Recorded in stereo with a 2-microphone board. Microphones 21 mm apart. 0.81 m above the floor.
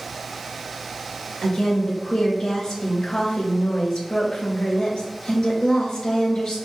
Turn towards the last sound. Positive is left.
turn(degrees=45)  # may be behind; listen again after turning